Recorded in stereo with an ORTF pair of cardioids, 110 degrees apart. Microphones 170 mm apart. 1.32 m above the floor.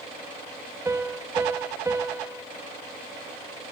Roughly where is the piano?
Ahead.